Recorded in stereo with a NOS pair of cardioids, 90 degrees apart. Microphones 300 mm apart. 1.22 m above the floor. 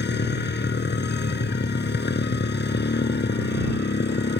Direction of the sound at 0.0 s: 35° left.